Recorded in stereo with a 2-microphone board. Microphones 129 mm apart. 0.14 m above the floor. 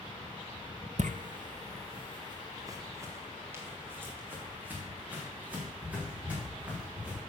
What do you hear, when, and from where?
1.0 s footsteps: 65° right (ahead or behind), 0.7 m; by 7.2 s 10° right (ahead or behind), 6 m